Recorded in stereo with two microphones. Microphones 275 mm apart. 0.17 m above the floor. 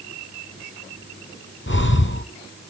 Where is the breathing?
45° left (ahead or behind), 0.7 m.